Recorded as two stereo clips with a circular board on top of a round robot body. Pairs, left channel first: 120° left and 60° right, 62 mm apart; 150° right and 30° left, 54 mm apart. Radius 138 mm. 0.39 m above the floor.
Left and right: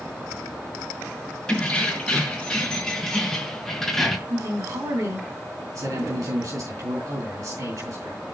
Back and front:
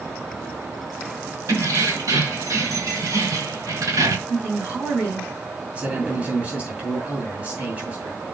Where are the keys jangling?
40° left, 4.5 m; by 4.2 s 30° left, 2 m.